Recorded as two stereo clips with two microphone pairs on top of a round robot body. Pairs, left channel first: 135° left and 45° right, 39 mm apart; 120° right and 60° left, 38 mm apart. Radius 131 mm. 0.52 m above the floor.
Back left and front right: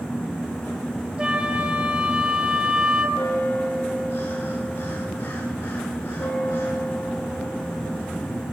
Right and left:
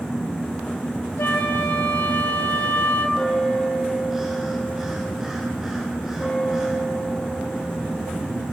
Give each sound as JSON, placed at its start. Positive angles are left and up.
{"t": 1.2, "sound": "a flute", "azimuth_deg": -110, "distance_m": 3.5}
{"t": 3.1, "sound": "a bell", "azimuth_deg": 140, "distance_m": 7.0}